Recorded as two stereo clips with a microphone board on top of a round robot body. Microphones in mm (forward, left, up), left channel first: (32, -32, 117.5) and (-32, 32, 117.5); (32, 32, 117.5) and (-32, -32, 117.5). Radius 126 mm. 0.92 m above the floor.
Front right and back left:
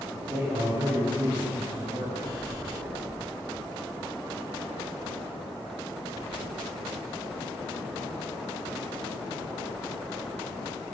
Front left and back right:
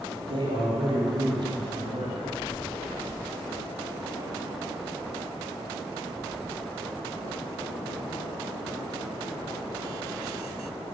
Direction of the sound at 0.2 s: 170° right.